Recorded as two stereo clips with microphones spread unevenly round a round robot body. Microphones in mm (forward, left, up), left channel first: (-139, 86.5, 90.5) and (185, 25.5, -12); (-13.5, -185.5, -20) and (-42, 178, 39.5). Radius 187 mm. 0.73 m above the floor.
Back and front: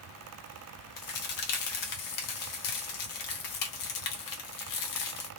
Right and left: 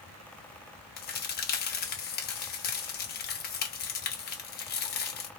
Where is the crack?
155° right, 0.9 m.